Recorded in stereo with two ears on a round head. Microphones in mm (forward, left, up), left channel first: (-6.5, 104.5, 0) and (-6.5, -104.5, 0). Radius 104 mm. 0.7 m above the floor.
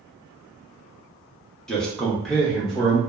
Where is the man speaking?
5° left (ahead or behind), 0.7 m; by 3.0 s centre (ahead or behind), 0.9 m.